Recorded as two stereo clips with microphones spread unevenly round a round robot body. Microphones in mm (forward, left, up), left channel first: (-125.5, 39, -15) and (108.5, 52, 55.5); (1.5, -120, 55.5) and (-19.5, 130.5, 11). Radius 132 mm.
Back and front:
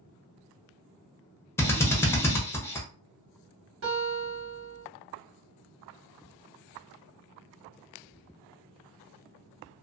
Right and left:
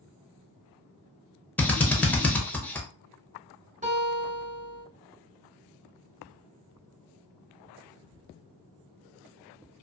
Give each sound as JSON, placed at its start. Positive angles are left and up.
{"t": 1.6, "sound": "a drill", "azimuth_deg": 175, "distance_m": 0.7}
{"t": 3.8, "sound": "a guitar", "azimuth_deg": 35, "distance_m": 1.6}